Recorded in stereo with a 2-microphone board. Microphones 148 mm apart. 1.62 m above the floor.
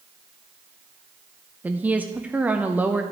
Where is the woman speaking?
10° right (ahead or behind), 0.6 m.